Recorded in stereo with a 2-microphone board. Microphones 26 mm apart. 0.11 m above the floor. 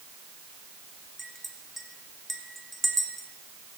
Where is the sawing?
I don't hear sawing.